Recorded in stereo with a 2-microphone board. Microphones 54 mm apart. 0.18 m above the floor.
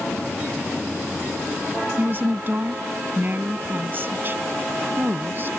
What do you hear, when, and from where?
2.0 s a woman speaking: 40° right (ahead or behind)